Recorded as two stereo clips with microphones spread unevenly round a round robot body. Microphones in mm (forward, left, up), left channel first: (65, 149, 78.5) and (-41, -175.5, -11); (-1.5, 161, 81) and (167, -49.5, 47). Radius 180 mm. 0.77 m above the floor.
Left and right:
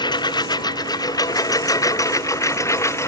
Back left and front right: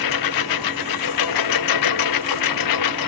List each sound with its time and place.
0.0 s a lawn mower: 150° left; by 3.1 s 155° left